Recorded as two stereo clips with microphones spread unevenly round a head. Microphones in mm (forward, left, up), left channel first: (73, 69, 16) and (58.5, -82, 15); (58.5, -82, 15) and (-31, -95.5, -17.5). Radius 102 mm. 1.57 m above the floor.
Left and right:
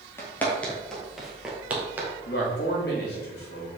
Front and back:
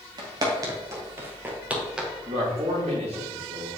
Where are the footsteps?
145° left, 1.7 m; by 2.1 s 45° right, 1.6 m.